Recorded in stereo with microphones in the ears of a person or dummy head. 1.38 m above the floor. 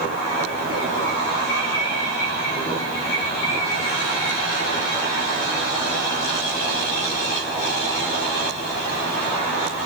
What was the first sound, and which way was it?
Only background noise.